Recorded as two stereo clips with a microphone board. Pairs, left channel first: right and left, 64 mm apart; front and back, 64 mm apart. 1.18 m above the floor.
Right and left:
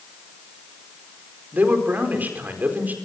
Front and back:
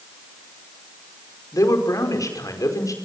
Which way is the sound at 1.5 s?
30° left.